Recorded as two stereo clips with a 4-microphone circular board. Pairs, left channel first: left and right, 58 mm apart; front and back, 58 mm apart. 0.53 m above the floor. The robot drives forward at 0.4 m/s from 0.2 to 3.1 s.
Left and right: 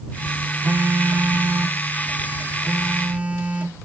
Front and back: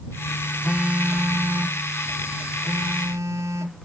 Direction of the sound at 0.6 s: 105° right.